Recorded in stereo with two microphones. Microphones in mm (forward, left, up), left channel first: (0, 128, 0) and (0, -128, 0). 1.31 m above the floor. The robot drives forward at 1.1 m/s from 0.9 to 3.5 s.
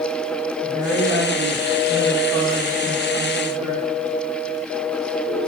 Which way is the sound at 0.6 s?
65° right (ahead or behind).